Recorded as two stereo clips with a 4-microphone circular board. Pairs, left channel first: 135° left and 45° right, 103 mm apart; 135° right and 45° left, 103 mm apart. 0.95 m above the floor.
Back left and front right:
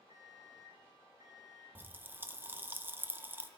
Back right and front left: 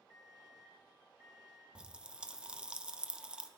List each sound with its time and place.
0.1 s an alarm clock: 15° left, 5.5 m
1.8 s a pop: 20° right, 0.8 m